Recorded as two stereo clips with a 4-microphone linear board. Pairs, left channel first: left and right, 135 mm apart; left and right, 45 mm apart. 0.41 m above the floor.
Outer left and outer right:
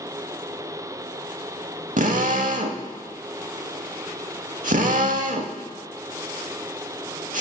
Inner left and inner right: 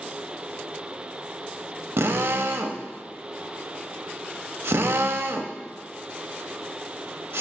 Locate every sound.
2.0 s a drill: 75° right (ahead or behind), 0.7 m